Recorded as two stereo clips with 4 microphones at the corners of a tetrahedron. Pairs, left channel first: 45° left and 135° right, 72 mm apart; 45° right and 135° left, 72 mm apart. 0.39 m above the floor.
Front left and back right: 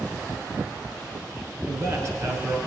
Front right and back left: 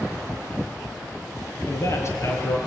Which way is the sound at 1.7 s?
90° right.